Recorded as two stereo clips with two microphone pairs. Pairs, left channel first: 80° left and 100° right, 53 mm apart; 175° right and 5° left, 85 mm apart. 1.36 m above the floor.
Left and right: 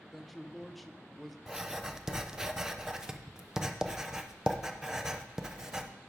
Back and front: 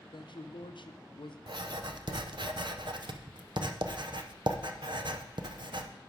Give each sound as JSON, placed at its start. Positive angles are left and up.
{"t": 0.1, "sound": "a man speaking", "azimuth_deg": 165, "distance_m": 0.6}
{"t": 1.5, "sound": "writing", "azimuth_deg": -20, "distance_m": 0.6}